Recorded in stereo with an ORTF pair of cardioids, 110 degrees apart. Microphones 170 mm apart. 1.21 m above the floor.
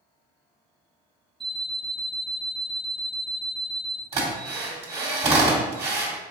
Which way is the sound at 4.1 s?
35° right.